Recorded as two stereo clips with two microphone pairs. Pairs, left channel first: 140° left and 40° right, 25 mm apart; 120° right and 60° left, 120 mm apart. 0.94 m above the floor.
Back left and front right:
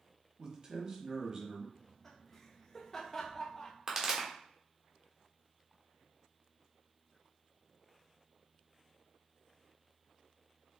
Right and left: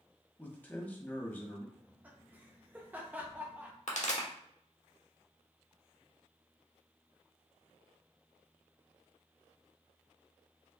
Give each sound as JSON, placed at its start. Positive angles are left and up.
{"t": 0.4, "sound": "a man speaking", "azimuth_deg": -55, "distance_m": 0.9}
{"t": 1.8, "sound": "laughter", "azimuth_deg": 100, "distance_m": 0.7}
{"t": 3.9, "sound": "a pop", "azimuth_deg": -115, "distance_m": 1.1}